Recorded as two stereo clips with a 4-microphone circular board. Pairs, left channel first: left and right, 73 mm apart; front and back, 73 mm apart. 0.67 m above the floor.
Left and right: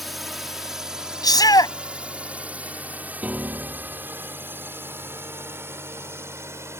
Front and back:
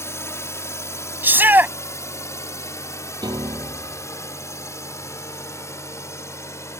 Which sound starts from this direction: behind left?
A shout, at 1.2 s.